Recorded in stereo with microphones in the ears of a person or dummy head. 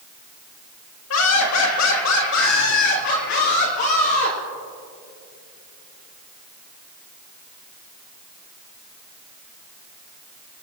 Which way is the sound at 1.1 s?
85° left.